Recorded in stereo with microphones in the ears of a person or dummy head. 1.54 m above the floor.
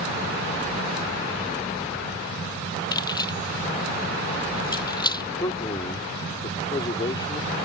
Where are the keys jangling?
20° left (ahead or behind).